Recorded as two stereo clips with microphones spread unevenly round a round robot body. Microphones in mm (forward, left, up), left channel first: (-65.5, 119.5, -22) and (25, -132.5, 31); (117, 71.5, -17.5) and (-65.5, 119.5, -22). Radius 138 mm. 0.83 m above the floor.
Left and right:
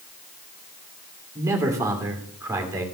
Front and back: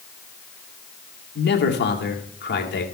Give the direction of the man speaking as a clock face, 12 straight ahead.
12 o'clock.